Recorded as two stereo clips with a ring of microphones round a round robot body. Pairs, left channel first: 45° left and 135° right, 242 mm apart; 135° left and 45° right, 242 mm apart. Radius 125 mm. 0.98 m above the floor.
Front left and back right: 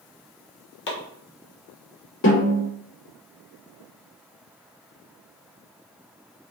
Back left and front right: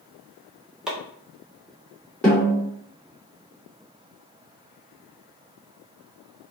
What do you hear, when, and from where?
0.9 s chopping: 40° left, 1.2 m
2.2 s a snare drum: 50° left, 2 m